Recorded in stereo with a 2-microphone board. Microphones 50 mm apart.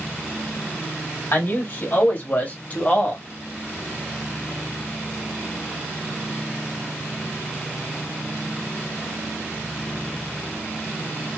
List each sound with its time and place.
1.3 s a man speaking: 55° left (ahead or behind), 2.0 m; by 3.2 s 30° left (ahead or behind), 1.3 m